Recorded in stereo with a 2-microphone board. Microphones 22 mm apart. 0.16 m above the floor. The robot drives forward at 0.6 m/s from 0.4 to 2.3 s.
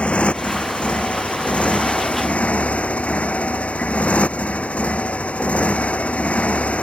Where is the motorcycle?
60° left (ahead or behind); by 6.8 s 70° left (ahead or behind).